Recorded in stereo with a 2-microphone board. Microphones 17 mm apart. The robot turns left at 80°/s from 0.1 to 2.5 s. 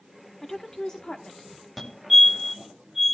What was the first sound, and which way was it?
A woman speaking, 160° left.